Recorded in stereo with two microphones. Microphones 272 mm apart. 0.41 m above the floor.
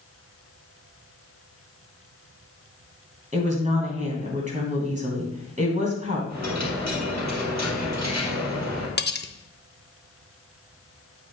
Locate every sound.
3.3 s a woman speaking: 25° right (ahead or behind), 3 m
6.3 s a dropped coin: 75° right (ahead or behind), 4 m
9.0 s cutlery clinking: 40° left (ahead or behind), 0.6 m